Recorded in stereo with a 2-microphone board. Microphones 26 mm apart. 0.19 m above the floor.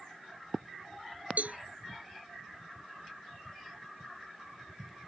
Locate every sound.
1.4 s a cowbell: 70° right (ahead or behind)